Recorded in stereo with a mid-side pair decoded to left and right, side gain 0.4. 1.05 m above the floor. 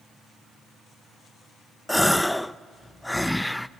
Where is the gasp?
10° left, 0.6 m.